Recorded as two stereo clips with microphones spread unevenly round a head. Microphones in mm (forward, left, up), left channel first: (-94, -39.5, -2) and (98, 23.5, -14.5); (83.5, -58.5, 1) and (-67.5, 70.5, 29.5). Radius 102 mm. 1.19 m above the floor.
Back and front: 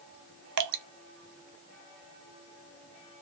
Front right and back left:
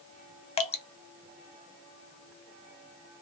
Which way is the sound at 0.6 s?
25° left.